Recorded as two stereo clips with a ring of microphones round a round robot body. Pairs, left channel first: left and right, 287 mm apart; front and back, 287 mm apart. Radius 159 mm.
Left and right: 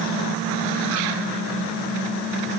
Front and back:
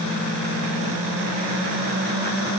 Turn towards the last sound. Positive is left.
No sound to turn to.